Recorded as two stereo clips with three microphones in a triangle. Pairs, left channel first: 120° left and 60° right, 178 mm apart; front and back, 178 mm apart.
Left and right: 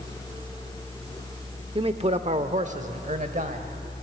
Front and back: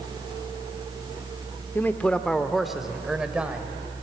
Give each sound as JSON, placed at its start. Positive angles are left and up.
{"t": 1.8, "sound": "a man speaking", "azimuth_deg": -65, "distance_m": 0.8}